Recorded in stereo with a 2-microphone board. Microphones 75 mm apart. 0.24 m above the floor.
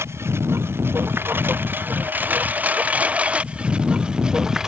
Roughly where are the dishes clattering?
I don't hear dishes clattering.